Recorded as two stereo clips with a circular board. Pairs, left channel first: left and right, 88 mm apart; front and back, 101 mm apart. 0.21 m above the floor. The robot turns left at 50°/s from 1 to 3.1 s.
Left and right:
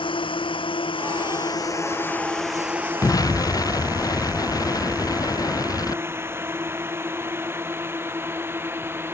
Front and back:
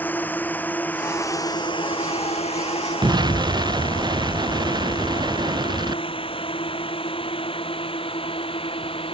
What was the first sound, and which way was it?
A drone, 75° left.